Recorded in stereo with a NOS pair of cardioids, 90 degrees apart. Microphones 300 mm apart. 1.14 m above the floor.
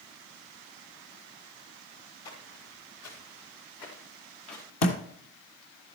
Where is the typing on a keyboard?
No typing on a keyboard in this recording.